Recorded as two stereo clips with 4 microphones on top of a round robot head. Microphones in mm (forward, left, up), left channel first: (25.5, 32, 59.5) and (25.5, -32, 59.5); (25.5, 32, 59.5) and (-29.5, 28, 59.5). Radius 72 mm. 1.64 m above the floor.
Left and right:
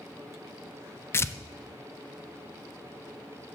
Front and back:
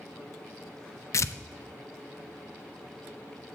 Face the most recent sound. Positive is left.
turn(degrees=40)